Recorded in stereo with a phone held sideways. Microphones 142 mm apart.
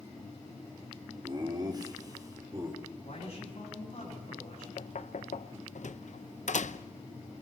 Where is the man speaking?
50° left (ahead or behind), 9.5 m.